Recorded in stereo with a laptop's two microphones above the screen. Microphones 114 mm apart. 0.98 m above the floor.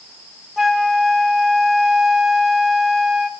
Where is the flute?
5° right (ahead or behind), 0.6 m.